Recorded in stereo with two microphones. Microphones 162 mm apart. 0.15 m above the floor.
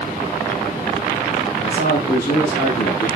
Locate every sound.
1.6 s a man speaking: 70° left (ahead or behind), 7.5 m; by 3.1 s 75° left (ahead or behind), 7.5 m